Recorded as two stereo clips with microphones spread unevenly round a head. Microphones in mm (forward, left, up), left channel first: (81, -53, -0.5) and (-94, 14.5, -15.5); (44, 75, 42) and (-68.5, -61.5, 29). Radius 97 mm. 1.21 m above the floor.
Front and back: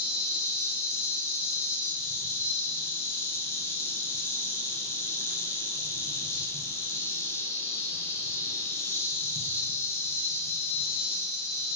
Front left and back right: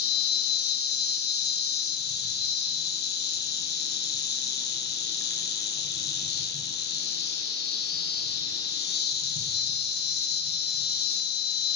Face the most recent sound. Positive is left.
turn(degrees=55)